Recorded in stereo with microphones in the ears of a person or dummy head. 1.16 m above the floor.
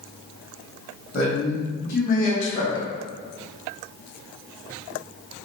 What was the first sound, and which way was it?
A man speaking, 65° left (ahead or behind).